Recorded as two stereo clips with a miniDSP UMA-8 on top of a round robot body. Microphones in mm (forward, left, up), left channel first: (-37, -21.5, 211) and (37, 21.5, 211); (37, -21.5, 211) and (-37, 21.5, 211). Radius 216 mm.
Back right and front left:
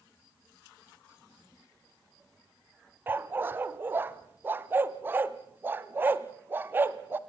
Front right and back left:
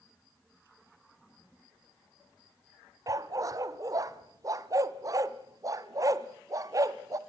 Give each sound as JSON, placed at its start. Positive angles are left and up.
{"t": 3.1, "sound": "a dog barking", "azimuth_deg": 100, "distance_m": 0.9}